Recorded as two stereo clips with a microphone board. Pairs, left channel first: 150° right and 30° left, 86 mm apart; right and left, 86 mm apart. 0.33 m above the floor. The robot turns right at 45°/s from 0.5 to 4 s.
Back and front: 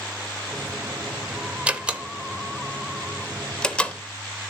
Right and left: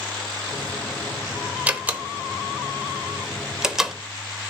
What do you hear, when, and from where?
1.7 s a door slam: 65° left, 0.7 m; by 4.0 s 170° left, 0.7 m